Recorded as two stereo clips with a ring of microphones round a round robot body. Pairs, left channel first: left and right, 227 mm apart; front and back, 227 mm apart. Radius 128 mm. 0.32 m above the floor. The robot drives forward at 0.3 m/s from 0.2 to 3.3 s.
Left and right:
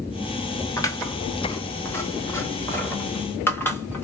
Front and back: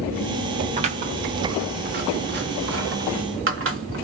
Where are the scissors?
150° left, 1.0 m; by 4.0 s 170° left, 1.5 m.